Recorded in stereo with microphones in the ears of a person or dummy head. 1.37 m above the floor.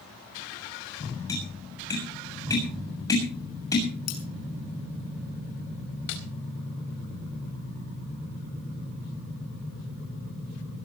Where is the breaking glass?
45° left (ahead or behind), 5.5 m.